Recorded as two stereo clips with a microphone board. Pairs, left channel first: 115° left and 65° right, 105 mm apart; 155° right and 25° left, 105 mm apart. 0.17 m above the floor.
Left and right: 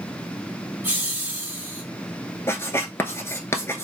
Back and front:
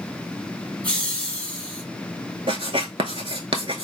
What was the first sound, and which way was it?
Laughter, 100° right.